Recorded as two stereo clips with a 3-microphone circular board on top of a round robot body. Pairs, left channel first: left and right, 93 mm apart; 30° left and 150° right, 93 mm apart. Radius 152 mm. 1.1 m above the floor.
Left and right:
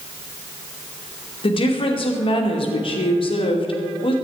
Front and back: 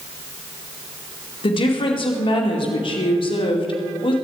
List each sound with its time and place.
1.4 s a woman speaking: 60° left, 2.5 m